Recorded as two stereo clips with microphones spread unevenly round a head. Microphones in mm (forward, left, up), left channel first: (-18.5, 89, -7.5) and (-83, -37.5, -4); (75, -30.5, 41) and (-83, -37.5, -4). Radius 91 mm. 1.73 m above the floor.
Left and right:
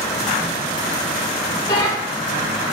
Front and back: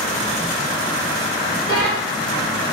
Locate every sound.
1.7 s a bell: 90° left, 1.0 m